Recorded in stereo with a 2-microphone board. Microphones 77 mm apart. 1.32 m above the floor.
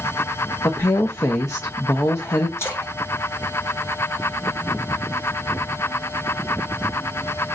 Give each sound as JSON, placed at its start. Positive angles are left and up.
{"t": 0.6, "sound": "a woman speaking", "side_deg": 40, "distance_m": 0.6}
{"t": 2.6, "sound": "a splash", "side_deg": 35, "distance_m": 1.6}